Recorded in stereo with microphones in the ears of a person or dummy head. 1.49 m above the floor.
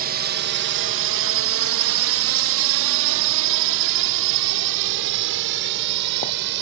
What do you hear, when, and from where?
0.0 s a drone: 40° right (ahead or behind); by 6.6 s 60° right (ahead or behind)